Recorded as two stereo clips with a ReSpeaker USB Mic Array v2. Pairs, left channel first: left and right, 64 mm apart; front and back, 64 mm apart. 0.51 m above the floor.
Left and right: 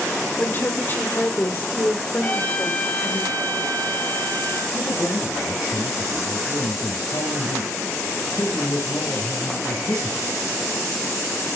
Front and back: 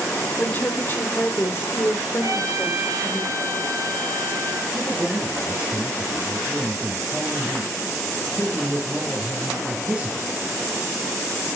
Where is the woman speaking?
50° left, 1.8 m; by 3.2 s 35° left, 3 m.